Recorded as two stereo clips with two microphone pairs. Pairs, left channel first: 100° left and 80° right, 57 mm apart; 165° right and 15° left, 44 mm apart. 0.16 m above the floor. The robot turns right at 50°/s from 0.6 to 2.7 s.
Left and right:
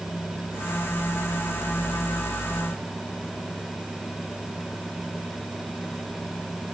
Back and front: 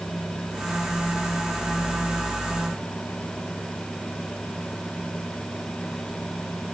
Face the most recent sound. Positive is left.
No sound to turn to.